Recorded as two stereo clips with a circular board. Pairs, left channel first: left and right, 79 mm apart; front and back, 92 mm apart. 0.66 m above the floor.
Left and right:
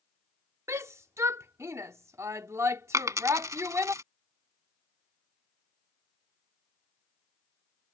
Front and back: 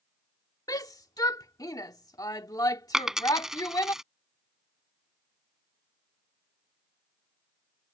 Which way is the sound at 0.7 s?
40° right.